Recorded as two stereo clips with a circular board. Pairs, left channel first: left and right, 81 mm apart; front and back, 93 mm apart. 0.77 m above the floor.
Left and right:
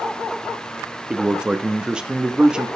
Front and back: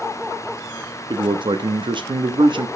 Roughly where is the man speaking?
Behind.